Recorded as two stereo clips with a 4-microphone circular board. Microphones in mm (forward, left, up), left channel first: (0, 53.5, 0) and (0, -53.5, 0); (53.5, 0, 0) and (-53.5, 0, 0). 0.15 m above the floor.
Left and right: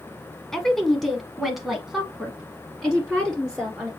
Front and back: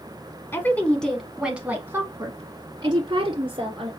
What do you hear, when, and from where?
0.5 s a woman speaking: 10° left, 1.1 m; by 3.9 s 175° right, 1.8 m